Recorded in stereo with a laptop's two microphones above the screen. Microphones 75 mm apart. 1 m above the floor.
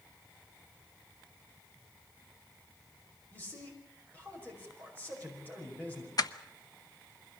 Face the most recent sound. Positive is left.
turn(degrees=55)  # may be behind; listen again after turning